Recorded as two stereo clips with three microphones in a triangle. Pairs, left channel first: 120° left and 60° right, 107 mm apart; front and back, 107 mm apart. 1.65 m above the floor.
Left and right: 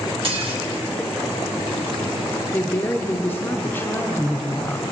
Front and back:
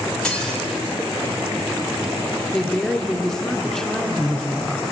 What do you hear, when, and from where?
0.2 s dishes clattering: 80° right, 1.7 m
2.5 s a woman speaking: 80° left, 0.6 m